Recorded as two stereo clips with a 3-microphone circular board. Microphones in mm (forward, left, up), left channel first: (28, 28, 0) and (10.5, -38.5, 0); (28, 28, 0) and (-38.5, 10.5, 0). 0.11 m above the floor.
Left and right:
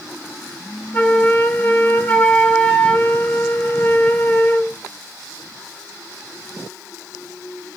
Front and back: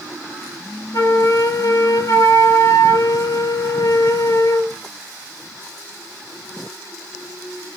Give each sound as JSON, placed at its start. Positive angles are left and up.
{"t": 0.9, "sound": "a flute", "azimuth_deg": 10, "distance_m": 0.5}